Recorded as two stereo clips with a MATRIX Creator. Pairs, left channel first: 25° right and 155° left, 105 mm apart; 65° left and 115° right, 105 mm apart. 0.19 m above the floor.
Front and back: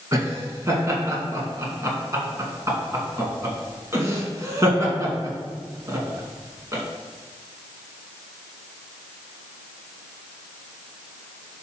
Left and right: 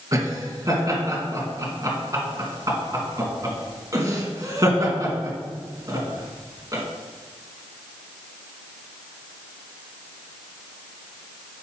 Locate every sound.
0.1 s laughter: 150° right, 2 m